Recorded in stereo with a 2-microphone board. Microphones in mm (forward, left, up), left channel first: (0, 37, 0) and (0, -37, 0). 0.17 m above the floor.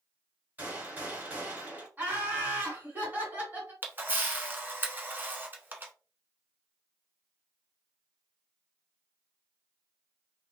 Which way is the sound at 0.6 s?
20° right (ahead or behind).